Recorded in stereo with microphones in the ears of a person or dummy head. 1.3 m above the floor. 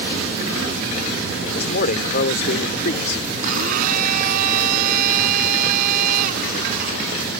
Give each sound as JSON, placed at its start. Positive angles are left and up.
{"t": 1.6, "sound": "a man speaking", "side_deg": 50}
{"t": 3.4, "sound": "a blender", "side_deg": -50}